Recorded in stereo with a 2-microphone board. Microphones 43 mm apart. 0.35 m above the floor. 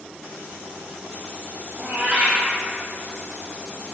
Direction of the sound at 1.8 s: 30° right (ahead or behind).